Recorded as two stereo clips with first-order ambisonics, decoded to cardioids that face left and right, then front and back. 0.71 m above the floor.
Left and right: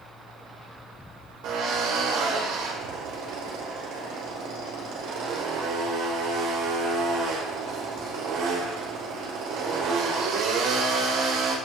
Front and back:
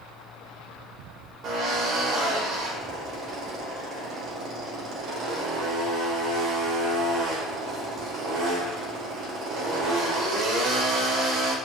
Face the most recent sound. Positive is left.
turn(degrees=-125)